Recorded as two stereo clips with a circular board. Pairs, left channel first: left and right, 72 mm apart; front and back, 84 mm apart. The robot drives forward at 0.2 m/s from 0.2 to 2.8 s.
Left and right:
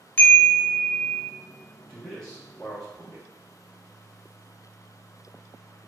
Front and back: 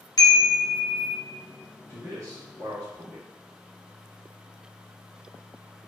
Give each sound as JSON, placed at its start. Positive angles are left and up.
{"t": 0.2, "sound": "a chime", "azimuth_deg": 30, "distance_m": 0.6}
{"t": 1.9, "sound": "a man speaking", "azimuth_deg": 165, "distance_m": 0.6}